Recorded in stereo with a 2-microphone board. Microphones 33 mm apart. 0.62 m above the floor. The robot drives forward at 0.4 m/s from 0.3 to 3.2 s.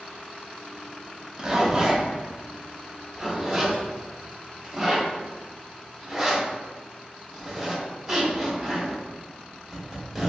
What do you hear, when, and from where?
1.4 s a zipper: 20° right (ahead or behind), 0.7 m; by 10.3 s 10° right (ahead or behind), 1.2 m